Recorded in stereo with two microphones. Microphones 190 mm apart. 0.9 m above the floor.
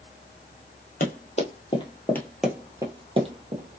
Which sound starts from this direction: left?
Running footsteps, at 1.0 s.